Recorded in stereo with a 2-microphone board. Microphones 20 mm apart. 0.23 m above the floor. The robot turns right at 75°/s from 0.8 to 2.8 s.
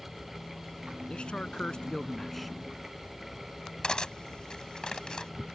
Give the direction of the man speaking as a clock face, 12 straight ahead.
10 o'clock.